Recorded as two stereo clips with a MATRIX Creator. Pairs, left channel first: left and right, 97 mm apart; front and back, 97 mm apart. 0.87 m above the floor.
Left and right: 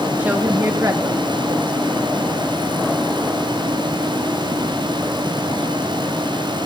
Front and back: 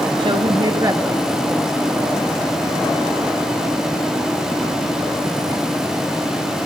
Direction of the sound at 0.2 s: 160° right.